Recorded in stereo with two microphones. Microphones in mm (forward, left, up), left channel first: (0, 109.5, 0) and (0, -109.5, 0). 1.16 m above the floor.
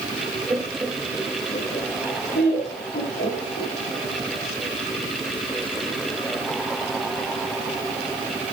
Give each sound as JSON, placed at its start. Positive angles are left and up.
{"t": 0.5, "sound": "laughter", "side_deg": -15, "distance_m": 1.3}